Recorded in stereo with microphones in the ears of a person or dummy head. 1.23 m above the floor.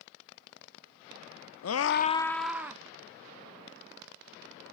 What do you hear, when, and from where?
1.6 s a scream: 75° left (ahead or behind), 0.7 m; by 2.8 s 15° right (ahead or behind), 1.4 m